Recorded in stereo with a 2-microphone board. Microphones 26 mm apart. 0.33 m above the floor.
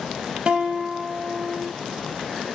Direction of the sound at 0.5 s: 40° right (ahead or behind).